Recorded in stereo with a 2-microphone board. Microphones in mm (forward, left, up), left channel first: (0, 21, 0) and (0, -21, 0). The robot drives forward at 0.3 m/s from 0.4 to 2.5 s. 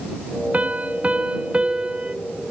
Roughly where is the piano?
Right.